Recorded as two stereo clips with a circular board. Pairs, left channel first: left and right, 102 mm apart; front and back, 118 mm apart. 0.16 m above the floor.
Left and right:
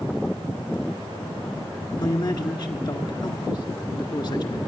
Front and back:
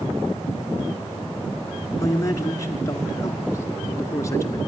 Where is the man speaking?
55° left, 2.0 m.